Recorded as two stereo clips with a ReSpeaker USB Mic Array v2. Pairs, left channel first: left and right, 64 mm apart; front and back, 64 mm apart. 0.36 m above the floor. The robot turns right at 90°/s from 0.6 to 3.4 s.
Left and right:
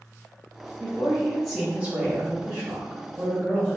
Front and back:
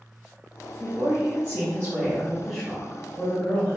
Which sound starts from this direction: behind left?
A woman speaking, at 0.8 s.